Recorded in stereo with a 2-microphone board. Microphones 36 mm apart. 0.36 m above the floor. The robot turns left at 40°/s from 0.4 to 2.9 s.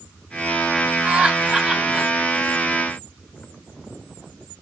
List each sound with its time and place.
1.1 s laughter: 30° right (ahead or behind), 1.4 m; by 2.1 s 20° right (ahead or behind), 1.4 m